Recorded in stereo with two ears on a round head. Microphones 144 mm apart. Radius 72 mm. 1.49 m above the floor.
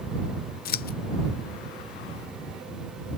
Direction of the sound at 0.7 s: 60° left (ahead or behind).